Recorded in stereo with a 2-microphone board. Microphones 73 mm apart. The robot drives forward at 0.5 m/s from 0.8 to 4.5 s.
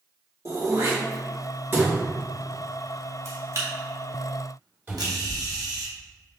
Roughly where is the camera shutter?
Right.